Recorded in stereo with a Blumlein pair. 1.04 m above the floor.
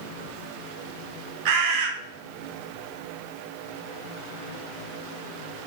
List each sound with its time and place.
1.4 s a bird: 45° right, 0.7 m